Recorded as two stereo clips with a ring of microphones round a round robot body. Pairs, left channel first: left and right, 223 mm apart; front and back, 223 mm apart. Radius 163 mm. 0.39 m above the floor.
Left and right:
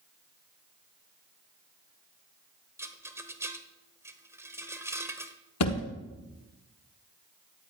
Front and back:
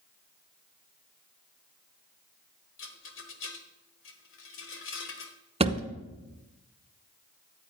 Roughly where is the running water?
No running water in this recording.